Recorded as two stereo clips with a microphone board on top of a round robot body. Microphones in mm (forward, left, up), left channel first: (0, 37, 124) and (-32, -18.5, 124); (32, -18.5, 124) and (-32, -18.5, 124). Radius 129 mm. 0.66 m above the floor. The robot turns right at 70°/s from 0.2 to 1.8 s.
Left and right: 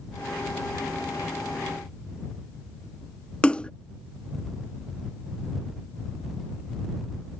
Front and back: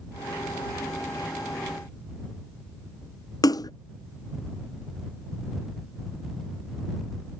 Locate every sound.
3.4 s a splash: 15° right